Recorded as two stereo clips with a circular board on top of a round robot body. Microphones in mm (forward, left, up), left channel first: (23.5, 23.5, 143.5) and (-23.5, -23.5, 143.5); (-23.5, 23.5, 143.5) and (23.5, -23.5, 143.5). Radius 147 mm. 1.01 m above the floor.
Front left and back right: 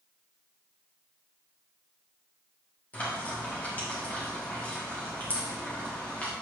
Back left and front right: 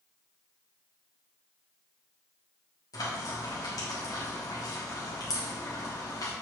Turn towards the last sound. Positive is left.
turn(degrees=110)